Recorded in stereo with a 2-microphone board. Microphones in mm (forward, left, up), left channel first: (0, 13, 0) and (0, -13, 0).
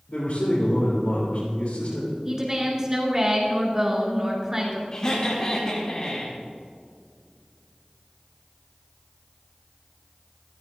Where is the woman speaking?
20° right (ahead or behind), 3.5 m.